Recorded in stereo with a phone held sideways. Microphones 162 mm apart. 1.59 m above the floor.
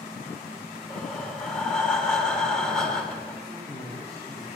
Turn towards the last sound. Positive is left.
turn(degrees=-35)  # may be behind; listen again after turning